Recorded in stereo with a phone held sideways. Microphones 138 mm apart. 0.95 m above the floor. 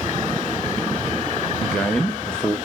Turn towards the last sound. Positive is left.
turn(degrees=5)  # may be behind; listen again after turning